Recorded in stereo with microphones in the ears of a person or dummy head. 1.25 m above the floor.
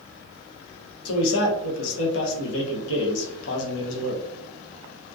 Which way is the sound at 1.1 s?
85° left.